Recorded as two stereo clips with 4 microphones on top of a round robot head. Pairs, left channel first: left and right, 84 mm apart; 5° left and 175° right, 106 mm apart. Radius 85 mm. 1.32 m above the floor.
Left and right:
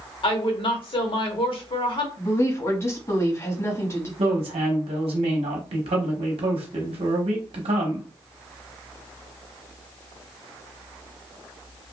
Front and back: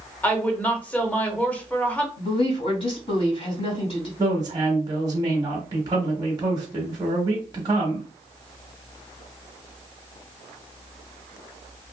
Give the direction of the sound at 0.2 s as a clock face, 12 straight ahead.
9 o'clock.